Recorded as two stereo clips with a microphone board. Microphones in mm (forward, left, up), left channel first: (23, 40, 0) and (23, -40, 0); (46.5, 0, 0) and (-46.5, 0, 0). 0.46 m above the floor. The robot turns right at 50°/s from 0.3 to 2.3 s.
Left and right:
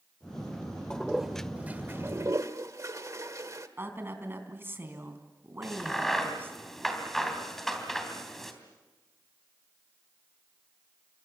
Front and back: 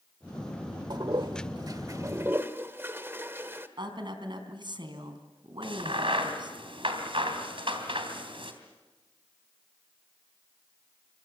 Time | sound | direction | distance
0.9 | a toilet flushing | 170° left | 1.4 m
3.8 | a woman speaking | 150° right | 3.5 m
5.6 | a crack | 175° left | 3 m